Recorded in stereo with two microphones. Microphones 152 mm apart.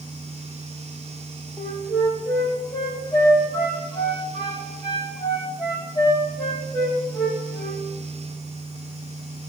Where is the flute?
25° left (ahead or behind), 3 m.